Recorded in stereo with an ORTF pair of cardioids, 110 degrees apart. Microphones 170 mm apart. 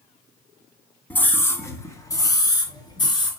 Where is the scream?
10° left, 2.5 m; by 3.3 s 25° left, 5 m.